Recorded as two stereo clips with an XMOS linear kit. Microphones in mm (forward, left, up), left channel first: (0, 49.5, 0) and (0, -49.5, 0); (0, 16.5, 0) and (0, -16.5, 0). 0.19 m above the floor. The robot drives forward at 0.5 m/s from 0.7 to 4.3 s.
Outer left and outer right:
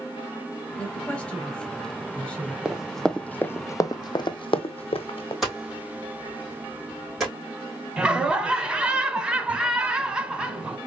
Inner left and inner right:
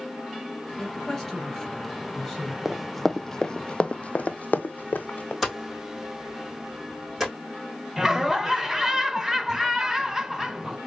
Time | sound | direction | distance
0.8 | a woman speaking | 10° left (ahead or behind) | 2 m
2.6 | running footsteps | 10° right (ahead or behind) | 0.6 m
5.4 | hammering | centre (ahead or behind) | 3 m
8.0 | laughter | 10° right (ahead or behind) | 1.1 m